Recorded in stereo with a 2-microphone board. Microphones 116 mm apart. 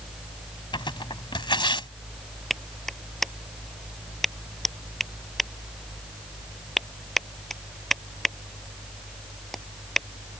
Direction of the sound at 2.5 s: 5° left (ahead or behind).